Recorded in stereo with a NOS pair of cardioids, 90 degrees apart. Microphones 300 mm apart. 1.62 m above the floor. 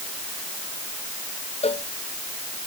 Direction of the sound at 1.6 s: 20° left.